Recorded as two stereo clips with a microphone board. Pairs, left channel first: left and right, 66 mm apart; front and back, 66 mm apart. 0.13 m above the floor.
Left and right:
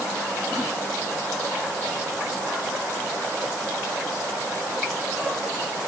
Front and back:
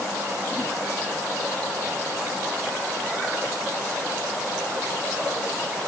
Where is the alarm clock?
I don't hear an alarm clock.